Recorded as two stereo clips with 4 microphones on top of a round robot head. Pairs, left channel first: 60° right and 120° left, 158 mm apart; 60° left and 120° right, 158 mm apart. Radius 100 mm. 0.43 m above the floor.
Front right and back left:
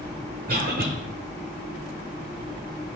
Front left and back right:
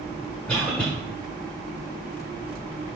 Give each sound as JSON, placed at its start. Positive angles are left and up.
{"t": 0.5, "sound": "a cough", "azimuth_deg": 145, "distance_m": 1.6}